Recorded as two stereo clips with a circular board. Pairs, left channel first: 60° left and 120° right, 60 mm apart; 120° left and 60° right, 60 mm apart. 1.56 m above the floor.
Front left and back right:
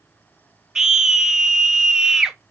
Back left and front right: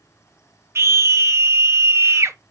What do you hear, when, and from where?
0.8 s a scream: 45° right, 0.6 m